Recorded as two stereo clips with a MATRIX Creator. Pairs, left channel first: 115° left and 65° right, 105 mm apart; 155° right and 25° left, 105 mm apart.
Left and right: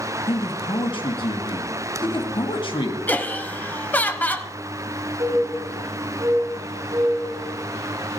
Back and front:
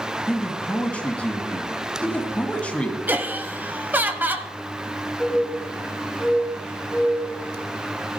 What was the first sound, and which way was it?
A man speaking, 130° left.